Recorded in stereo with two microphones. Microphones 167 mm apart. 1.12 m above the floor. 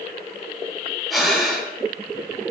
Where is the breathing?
Centre (ahead or behind), 1.3 m.